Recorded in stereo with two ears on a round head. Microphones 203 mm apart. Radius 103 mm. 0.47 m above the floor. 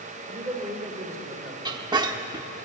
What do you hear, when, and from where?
0.3 s a man speaking: 15° right (ahead or behind), 1.8 m
1.6 s a squeak: 20° right (ahead or behind), 0.7 m